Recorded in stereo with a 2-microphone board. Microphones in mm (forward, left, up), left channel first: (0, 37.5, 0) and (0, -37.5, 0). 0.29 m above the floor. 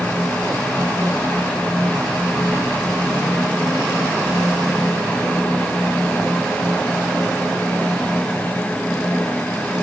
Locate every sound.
Only background noise.